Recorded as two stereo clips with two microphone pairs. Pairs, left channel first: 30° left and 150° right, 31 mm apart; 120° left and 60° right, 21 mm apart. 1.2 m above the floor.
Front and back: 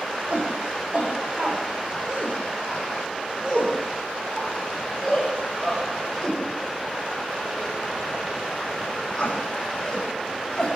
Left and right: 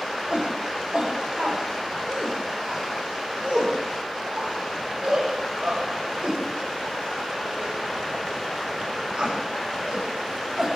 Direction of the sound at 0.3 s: 105° right.